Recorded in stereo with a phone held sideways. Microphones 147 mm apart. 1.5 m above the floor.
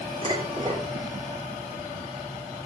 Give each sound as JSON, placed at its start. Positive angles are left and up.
{"t": 0.2, "sound": "dishes clattering", "side_deg": -30, "distance_m": 3.0}